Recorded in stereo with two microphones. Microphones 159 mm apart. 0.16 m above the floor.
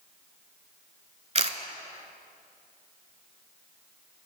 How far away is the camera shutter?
About 0.7 m.